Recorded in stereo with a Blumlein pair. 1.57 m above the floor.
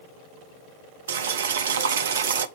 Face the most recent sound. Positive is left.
turn(degrees=-65)